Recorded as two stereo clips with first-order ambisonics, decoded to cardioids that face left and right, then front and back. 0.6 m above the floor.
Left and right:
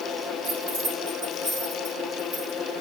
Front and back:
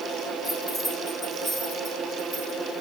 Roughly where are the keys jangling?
Right.